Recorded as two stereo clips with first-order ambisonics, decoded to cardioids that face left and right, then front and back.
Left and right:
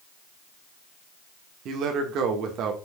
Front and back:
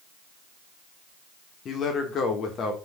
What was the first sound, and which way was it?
A man speaking, 55° right.